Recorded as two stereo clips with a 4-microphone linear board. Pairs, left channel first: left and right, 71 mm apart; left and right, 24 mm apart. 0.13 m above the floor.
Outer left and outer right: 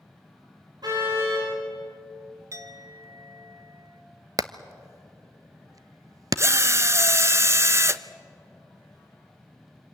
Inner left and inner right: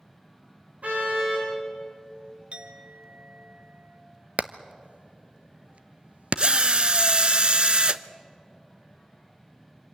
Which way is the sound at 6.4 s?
40° right (ahead or behind).